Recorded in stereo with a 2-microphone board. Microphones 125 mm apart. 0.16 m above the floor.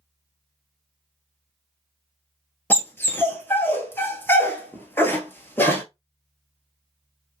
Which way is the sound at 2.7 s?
20° left (ahead or behind).